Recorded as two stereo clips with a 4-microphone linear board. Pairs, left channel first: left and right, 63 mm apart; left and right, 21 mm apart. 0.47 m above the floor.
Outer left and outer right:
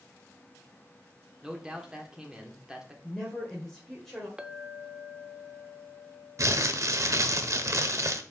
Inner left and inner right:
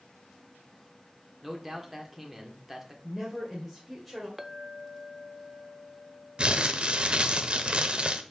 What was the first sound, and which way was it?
A man speaking, 10° right (ahead or behind).